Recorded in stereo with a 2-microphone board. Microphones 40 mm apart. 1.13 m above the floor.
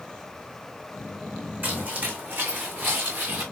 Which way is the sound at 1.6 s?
45° right (ahead or behind).